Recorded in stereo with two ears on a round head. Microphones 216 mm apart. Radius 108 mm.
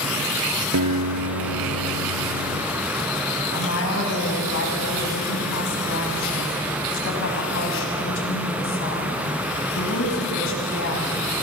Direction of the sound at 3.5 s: 60° left (ahead or behind).